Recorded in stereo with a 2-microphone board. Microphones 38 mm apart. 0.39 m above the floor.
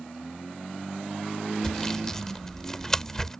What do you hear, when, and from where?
1.6 s sawing: 15° left (ahead or behind)